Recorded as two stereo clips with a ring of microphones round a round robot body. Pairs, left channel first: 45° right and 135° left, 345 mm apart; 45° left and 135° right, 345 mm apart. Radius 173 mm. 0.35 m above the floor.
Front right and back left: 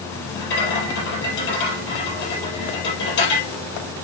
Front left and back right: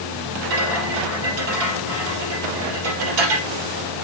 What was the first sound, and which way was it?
A rattle, 105° right.